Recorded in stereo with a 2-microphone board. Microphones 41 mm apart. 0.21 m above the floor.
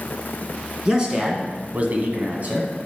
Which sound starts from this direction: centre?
A man speaking, at 0.8 s.